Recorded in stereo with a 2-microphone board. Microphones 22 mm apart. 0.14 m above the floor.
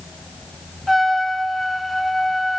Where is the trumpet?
5° left (ahead or behind), 0.5 m.